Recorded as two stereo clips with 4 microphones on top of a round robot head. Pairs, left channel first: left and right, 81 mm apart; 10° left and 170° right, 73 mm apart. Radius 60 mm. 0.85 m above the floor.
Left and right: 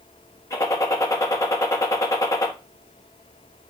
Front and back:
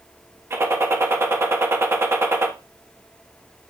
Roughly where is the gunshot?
Behind left.